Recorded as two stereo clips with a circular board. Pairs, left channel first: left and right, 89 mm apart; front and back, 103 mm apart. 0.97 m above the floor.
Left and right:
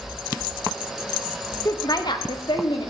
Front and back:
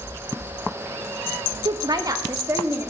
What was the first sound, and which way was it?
A woman speaking, 140° left.